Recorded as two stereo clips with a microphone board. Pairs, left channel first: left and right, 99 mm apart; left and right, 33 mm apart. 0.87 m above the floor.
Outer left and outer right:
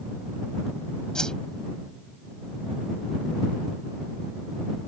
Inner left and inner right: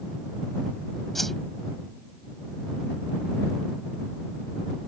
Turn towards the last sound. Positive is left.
turn(degrees=10)  # may be behind; listen again after turning